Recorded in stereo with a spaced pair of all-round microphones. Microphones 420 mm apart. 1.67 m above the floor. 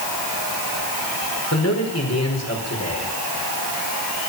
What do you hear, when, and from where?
1.5 s a man speaking: 35° left (ahead or behind), 5 m